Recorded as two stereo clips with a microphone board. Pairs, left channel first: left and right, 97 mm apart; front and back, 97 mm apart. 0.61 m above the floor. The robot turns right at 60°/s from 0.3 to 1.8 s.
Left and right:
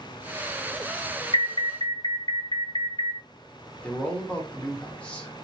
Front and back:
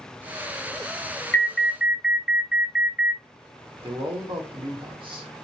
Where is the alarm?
75° left, 0.7 m; by 3.2 s 105° left, 0.7 m.